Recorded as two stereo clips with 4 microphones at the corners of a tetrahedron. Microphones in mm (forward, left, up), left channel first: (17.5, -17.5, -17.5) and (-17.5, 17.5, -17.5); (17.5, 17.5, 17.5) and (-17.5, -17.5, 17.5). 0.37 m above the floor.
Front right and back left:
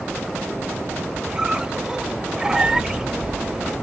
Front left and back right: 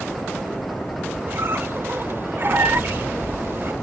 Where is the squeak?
155° right, 0.6 m.